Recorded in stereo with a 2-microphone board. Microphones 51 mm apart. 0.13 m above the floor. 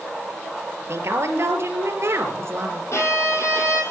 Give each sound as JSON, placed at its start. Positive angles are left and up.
{"t": 0.9, "sound": "a woman speaking", "side_deg": -60, "distance_m": 3.5}
{"t": 2.9, "sound": "a violin", "side_deg": 65, "distance_m": 4.0}